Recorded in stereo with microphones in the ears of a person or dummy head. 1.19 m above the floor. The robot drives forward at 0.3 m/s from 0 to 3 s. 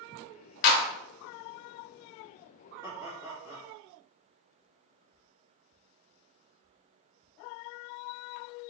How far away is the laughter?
About 2 m.